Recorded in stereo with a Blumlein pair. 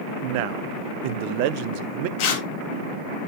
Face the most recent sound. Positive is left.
turn(degrees=45)